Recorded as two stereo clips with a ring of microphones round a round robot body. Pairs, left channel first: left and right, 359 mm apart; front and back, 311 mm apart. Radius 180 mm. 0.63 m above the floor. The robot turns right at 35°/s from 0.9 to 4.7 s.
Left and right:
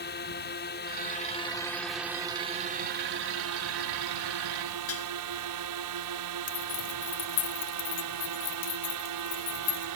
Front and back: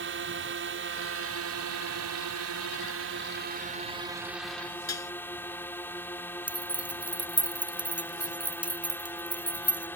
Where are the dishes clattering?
35° left.